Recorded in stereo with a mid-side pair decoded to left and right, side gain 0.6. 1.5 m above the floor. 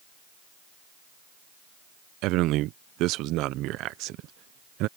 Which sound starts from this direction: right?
A man speaking, at 2.2 s.